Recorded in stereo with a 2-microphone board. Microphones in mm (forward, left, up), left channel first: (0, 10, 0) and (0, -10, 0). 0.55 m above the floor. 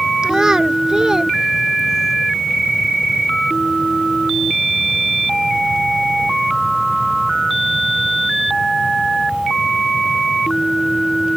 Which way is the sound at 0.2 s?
35° right (ahead or behind).